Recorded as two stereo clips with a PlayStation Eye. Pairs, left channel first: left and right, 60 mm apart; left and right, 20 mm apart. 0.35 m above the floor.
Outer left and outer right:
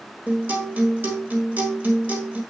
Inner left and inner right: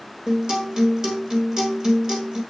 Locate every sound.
0.3 s a guitar: 30° right (ahead or behind), 1.6 m